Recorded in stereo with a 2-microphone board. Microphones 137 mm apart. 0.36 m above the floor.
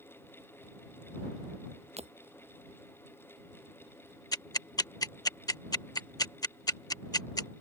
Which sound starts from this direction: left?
Ticking, at 4.3 s.